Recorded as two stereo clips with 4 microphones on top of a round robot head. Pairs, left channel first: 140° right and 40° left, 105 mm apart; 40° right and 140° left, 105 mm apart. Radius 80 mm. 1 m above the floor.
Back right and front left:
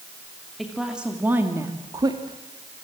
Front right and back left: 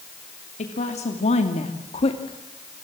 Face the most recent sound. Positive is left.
turn(degrees=10)